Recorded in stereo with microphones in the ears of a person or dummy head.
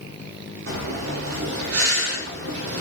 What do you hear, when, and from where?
0.7 s breathing: 80° right, 0.7 m